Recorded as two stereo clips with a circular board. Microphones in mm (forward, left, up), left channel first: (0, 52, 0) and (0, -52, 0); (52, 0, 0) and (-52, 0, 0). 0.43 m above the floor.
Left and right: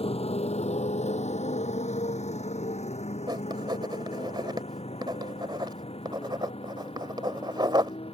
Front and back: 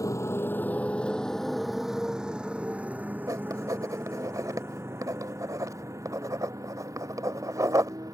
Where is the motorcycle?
60° left; by 8.2 s 120° left.